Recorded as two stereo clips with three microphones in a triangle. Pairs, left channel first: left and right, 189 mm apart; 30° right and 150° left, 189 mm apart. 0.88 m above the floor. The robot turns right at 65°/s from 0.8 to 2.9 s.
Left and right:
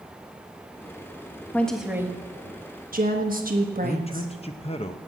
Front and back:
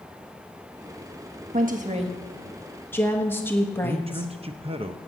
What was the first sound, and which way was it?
A woman speaking, 165° left.